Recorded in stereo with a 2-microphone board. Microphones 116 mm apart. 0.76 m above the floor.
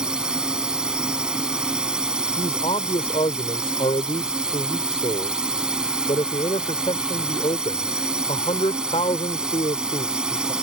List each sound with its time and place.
0.0 s a drone: 5° right (ahead or behind)
2.4 s a man speaking: 60° left (ahead or behind)